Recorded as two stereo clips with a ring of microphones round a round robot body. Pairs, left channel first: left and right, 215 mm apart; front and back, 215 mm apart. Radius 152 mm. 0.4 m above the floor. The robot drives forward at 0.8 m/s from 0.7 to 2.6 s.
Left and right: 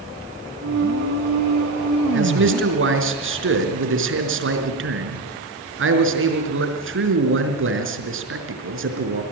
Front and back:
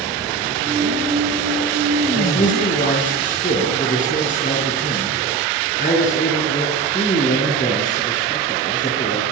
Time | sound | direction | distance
2.1 | a man speaking | 60° right | 4.5 m